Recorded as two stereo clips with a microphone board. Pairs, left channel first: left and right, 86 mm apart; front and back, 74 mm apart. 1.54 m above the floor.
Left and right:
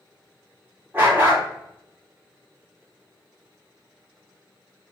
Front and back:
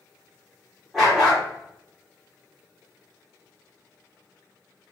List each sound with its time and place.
0.9 s a dog barking: 90° right, 1.0 m